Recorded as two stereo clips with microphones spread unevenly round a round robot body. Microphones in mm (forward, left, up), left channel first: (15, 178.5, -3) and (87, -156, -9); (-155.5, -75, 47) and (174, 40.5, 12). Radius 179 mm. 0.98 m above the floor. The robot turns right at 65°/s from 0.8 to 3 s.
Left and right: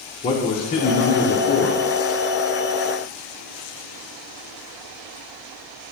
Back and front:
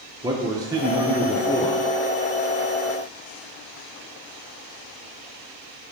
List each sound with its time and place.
0.2 s a man speaking: 55° left, 0.7 m; by 1.8 s 125° left, 0.7 m